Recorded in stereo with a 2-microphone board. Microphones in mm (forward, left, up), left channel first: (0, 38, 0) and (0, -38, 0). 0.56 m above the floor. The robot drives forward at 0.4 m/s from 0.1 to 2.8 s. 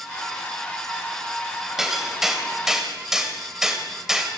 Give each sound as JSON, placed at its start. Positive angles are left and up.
{"t": 1.8, "sound": "hammering", "side_deg": -5, "distance_m": 3.0}